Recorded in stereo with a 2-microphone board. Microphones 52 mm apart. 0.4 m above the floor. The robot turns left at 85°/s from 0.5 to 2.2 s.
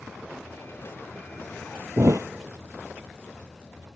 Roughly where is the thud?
Right.